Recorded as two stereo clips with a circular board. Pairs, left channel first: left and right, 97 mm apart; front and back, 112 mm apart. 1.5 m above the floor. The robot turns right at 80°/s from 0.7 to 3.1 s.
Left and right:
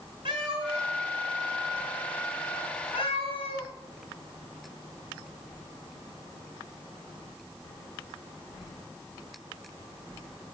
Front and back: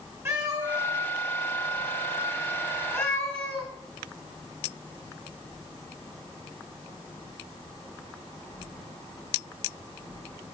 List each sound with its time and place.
0.2 s a cat meowing: 115° right, 4.5 m; by 3.7 s 75° left, 4.5 m